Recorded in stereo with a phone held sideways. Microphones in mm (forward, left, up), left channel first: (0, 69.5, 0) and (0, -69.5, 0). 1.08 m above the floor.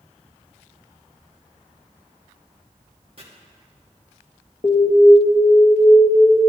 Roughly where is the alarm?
Left.